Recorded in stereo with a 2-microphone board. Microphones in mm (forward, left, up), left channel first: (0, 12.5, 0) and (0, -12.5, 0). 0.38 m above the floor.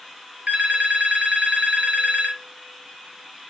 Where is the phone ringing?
55° right (ahead or behind), 1.1 m.